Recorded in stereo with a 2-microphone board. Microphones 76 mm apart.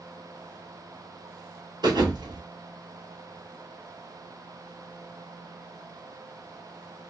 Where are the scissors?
I don't hear scissors.